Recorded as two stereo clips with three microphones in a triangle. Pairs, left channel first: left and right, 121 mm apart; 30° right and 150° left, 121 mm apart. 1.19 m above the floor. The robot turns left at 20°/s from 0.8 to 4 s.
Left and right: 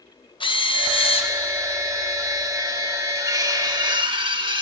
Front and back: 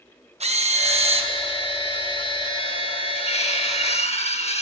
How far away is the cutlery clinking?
About 1.0 m.